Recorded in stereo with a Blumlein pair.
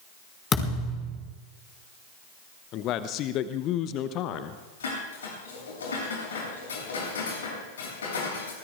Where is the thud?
20° left, 5.5 m.